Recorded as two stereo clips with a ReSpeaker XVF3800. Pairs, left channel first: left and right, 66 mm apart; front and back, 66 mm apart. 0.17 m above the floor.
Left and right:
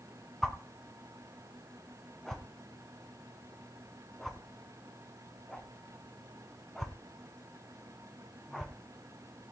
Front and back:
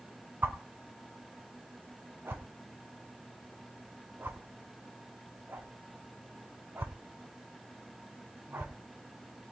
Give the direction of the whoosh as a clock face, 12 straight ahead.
6 o'clock.